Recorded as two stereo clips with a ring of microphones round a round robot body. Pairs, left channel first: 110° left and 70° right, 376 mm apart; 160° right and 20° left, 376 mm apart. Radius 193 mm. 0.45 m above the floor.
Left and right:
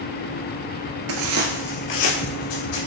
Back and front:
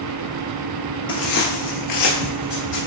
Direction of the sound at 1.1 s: 80° right.